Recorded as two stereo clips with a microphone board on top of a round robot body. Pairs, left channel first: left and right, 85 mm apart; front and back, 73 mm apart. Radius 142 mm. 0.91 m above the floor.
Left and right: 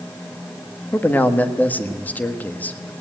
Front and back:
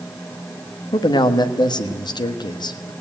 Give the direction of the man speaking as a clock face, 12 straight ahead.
11 o'clock.